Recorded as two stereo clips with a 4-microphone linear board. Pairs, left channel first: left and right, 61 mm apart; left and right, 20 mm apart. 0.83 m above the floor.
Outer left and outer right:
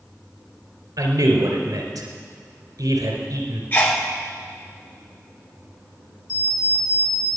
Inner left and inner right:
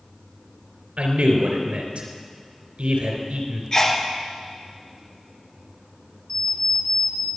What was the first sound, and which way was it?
A man speaking, 80° right.